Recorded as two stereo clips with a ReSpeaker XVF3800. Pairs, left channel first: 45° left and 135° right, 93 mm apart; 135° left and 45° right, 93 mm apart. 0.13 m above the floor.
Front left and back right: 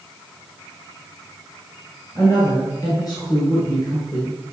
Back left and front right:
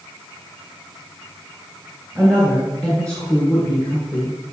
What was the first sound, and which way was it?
A woman speaking, 60° left.